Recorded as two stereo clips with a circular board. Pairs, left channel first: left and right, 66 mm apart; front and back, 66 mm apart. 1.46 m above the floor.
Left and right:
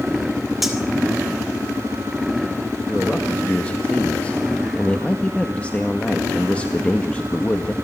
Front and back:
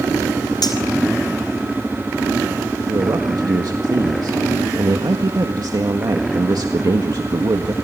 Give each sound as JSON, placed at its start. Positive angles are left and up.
{"t": 0.6, "sound": "cutlery clinking", "azimuth_deg": 0, "distance_m": 3.5}
{"t": 2.9, "sound": "a man speaking", "azimuth_deg": 160, "distance_m": 1.7}